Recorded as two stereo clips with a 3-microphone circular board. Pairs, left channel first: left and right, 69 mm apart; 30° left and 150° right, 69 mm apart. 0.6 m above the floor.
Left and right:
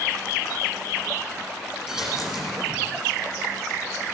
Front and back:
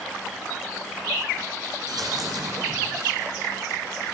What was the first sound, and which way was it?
A dropped coin, 170° right.